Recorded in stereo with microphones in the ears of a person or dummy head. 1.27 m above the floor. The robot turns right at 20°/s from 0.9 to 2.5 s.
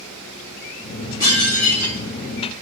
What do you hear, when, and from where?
1.2 s dishes clattering: 20° left (ahead or behind), 1.5 m; by 2.0 s 5° left (ahead or behind), 1.5 m